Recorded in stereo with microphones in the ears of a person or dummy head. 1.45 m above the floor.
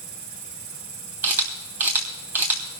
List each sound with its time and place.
0.0 s an insect: 40° right (ahead or behind), 5 m
1.2 s a camera shutter: 10° right (ahead or behind), 3 m